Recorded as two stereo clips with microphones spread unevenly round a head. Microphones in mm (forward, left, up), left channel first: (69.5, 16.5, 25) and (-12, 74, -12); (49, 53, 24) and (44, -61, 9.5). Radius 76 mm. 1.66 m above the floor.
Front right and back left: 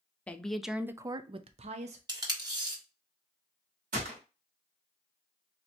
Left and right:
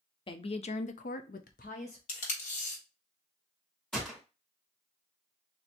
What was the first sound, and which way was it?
A woman speaking, 45° left.